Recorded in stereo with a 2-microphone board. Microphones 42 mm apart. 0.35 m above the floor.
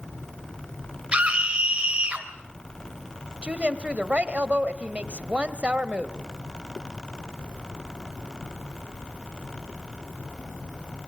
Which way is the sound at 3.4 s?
30° right (ahead or behind).